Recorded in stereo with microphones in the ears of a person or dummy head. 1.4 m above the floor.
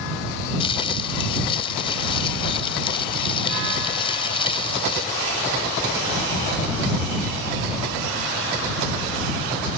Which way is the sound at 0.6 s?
35° left (ahead or behind).